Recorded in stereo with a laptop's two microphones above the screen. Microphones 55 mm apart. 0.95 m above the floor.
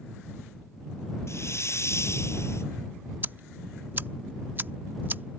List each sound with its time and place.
1.3 s a hiss: 55° left (ahead or behind)
3.2 s ticking: 35° right (ahead or behind)